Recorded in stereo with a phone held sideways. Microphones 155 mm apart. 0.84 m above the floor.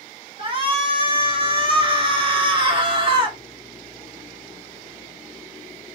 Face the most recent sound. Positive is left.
turn(degrees=-35)  # may be behind; listen again after turning